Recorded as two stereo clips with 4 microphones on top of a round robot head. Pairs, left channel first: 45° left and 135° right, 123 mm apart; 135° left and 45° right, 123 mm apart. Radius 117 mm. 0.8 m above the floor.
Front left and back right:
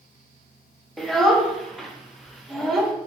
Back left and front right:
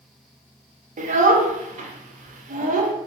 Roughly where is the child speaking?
Ahead right.